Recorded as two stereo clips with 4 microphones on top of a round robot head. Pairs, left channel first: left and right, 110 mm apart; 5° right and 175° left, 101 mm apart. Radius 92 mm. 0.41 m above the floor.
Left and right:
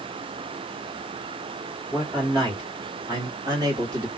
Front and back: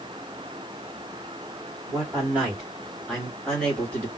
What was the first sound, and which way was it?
A man speaking, 120° right.